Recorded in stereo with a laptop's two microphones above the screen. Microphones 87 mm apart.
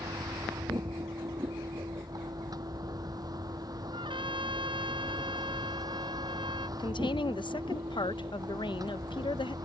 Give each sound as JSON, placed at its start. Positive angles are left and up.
{"t": 0.0, "sound": "a vehicle", "side_deg": -45}
{"t": 3.9, "sound": "a trumpet", "side_deg": -70}
{"t": 6.8, "sound": "a woman speaking", "side_deg": 65}